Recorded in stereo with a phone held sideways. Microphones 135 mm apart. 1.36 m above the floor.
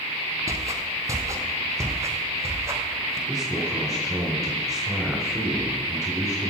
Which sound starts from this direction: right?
Footsteps, at 0.5 s.